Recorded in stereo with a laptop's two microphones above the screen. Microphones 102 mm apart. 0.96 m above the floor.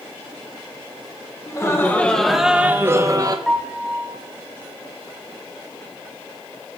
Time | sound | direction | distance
1.5 | laughter | 30° left (ahead or behind) | 1.0 m
3.5 | a piano | centre (ahead or behind) | 1.0 m